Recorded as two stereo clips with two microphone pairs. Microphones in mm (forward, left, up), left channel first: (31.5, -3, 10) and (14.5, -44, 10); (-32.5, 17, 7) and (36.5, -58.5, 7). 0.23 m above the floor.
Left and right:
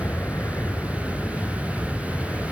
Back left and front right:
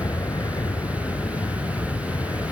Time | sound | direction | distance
0.0 | an aircraft | 80° left | ?